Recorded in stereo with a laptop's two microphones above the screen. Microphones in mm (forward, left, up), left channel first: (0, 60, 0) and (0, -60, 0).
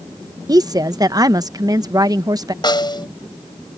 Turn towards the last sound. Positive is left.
turn(degrees=40)  # may be behind; listen again after turning